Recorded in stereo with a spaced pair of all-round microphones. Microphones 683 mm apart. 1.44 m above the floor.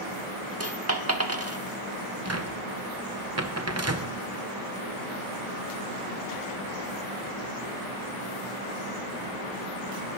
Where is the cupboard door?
25° right (ahead or behind), 0.9 m.